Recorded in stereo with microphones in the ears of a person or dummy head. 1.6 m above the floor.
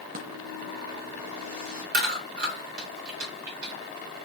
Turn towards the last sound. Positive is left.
turn(degrees=-70)  # may be behind; listen again after turning